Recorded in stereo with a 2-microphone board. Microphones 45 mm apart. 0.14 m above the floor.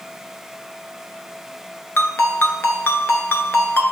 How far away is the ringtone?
About 0.7 m.